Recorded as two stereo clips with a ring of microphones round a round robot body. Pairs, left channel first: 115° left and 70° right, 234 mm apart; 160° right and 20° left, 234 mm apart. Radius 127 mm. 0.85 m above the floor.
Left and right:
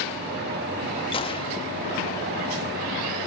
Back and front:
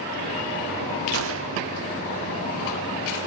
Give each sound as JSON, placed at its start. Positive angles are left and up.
{"t": 1.1, "sound": "a gunshot", "azimuth_deg": 45, "distance_m": 1.1}